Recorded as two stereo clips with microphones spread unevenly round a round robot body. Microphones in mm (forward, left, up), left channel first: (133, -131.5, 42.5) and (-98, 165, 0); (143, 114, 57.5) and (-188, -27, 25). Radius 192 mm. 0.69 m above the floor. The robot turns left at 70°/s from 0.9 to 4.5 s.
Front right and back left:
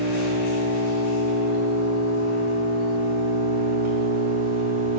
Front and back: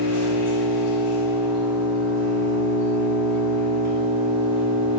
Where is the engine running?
10° right, 5.5 m; by 5.0 s 100° left, 5.5 m.